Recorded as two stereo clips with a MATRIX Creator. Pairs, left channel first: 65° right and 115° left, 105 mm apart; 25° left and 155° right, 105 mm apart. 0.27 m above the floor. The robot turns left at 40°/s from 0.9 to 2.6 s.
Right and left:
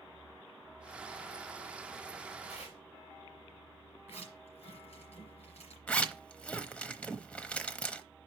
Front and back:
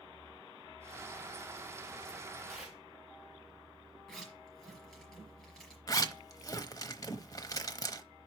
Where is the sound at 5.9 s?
5° left, 0.8 m.